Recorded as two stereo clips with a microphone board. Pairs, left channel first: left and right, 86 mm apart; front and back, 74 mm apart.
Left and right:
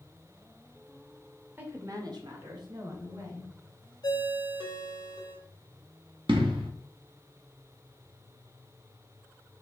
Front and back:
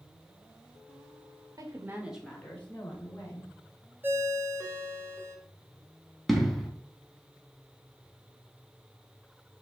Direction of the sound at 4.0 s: 120° left.